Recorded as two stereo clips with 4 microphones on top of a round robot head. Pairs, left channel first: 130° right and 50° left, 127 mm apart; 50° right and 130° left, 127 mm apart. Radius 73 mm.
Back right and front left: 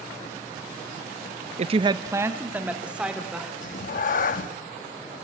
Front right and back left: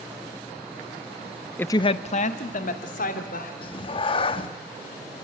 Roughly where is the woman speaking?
Ahead left.